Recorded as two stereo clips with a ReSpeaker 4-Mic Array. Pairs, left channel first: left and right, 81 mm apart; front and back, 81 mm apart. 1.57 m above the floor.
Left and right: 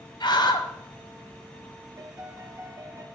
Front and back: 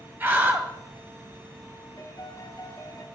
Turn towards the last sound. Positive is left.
turn(degrees=-45)